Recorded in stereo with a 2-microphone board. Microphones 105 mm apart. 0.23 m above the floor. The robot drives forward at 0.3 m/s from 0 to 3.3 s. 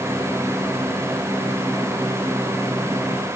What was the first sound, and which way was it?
Only background noise.